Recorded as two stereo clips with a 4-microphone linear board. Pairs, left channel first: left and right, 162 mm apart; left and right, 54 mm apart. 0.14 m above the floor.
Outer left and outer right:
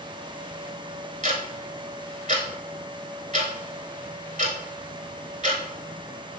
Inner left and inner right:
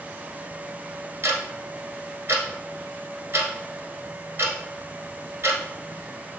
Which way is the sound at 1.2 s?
45° right (ahead or behind).